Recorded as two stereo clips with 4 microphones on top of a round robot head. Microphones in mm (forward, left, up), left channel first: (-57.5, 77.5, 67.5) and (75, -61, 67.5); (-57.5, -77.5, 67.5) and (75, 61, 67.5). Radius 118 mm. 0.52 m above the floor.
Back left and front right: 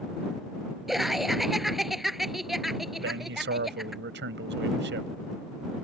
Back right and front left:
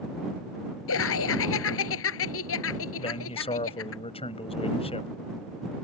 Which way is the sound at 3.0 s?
75° right.